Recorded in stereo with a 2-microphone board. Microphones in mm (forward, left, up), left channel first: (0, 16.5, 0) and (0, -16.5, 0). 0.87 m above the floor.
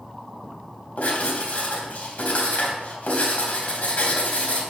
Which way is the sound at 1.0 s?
45° left (ahead or behind).